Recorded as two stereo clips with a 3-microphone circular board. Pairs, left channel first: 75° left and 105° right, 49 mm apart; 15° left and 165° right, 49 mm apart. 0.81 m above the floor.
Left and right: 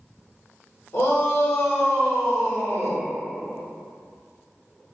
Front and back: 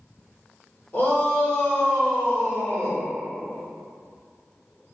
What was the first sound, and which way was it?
A shout, 75° left.